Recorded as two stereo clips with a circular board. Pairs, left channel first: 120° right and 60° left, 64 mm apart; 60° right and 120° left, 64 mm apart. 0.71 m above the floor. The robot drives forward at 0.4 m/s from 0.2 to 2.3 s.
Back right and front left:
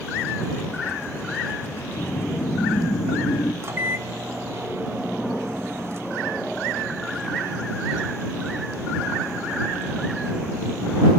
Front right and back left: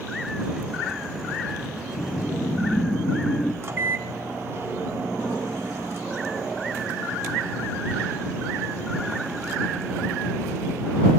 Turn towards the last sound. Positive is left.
turn(degrees=90)